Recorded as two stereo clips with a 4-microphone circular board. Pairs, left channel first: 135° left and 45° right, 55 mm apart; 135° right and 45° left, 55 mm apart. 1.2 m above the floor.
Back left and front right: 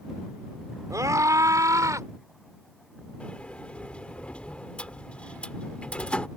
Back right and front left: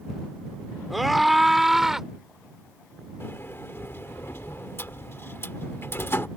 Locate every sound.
0.9 s a scream: 45° right; by 2.1 s 35° right
3.2 s a sliding door: 160° right